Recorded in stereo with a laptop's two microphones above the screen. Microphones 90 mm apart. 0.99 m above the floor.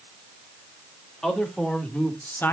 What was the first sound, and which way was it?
A man speaking, 5° left (ahead or behind).